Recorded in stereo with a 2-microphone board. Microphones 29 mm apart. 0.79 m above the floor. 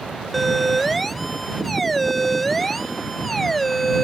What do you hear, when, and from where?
0.3 s a siren: centre (ahead or behind); by 4.0 s 5° left (ahead or behind)